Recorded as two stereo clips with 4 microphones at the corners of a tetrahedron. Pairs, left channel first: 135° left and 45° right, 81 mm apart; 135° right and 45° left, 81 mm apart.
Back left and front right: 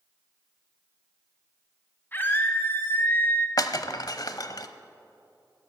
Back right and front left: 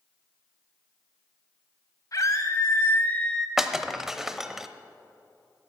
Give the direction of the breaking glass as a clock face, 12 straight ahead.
8 o'clock.